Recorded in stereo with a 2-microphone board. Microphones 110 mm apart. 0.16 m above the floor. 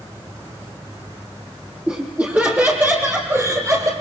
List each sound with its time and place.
1.9 s laughter: 10° right (ahead or behind), 4.5 m; by 3.9 s 30° right (ahead or behind), 4 m